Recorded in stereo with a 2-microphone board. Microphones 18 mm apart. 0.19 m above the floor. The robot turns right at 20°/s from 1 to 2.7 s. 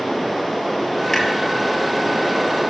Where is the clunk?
25° left (ahead or behind), 1.3 m.